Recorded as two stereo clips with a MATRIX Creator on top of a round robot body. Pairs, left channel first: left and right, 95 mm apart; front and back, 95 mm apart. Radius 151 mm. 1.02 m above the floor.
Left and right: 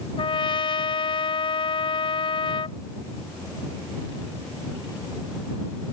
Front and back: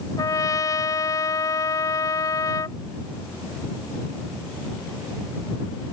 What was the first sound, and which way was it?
A trumpet, 55° left.